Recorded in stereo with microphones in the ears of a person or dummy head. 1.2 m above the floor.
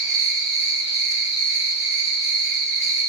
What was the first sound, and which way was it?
An insect, 40° right (ahead or behind).